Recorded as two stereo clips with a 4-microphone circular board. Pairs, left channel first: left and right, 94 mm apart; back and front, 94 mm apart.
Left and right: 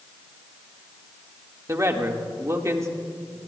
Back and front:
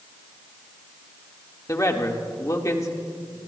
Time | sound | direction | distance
1.7 | a man speaking | 135° right | 1.5 m